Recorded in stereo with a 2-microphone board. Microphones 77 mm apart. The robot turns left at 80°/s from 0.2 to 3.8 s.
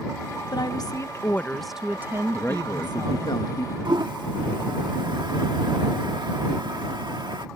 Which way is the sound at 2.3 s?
165° left.